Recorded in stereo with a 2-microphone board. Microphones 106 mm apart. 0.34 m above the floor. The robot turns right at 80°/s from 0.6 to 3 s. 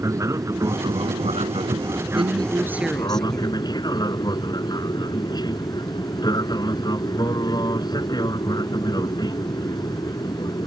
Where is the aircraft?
145° right; by 10.7 s 45° left.